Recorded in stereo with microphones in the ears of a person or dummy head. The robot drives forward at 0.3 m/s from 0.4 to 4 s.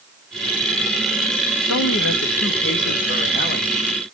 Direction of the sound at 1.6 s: 75° left (ahead or behind).